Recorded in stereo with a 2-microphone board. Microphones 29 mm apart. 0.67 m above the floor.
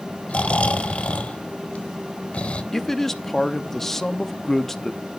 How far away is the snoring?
About 1.2 m.